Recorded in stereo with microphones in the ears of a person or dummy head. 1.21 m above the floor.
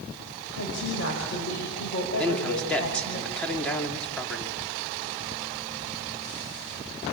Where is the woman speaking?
70° left (ahead or behind), 6 m.